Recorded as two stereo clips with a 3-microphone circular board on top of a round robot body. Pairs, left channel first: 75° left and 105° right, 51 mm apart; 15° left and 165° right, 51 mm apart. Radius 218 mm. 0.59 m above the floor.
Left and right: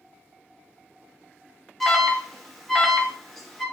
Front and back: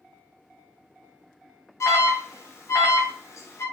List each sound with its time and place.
1.8 s an alarm: 15° right, 0.6 m